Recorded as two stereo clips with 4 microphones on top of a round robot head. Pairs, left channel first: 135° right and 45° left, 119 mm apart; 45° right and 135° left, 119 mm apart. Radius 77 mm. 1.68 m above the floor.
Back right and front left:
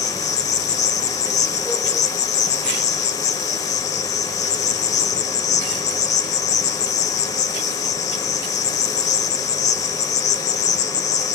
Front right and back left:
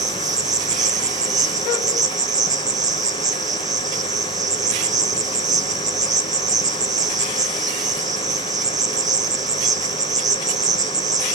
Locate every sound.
0.0 s an insect: 165° right, 1.4 m